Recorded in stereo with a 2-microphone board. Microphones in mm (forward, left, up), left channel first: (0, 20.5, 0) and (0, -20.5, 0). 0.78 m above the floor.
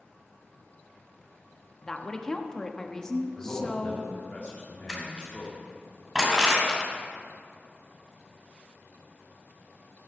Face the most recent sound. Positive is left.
turn(degrees=-15)  # may be behind; listen again after turning